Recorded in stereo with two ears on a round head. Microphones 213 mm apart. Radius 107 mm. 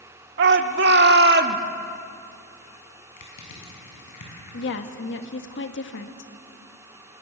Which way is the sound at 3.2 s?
85° left.